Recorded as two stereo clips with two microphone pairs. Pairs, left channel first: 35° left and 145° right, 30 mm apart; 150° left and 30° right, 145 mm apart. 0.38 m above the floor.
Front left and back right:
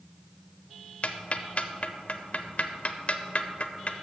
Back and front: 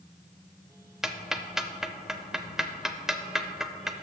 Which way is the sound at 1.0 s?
60° left.